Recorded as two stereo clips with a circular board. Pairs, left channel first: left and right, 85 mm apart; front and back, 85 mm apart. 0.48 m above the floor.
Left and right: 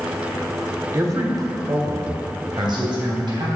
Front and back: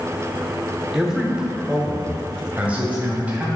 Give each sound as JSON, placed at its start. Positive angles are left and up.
{"t": 0.9, "sound": "a man speaking", "azimuth_deg": -100, "distance_m": 0.9}